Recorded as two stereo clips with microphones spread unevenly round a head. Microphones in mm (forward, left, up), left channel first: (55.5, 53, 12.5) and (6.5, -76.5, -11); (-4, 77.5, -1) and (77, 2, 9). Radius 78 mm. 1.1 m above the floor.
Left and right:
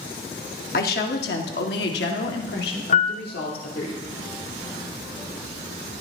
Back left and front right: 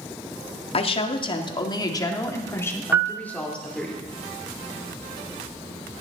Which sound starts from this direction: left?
A woman speaking, at 0.7 s.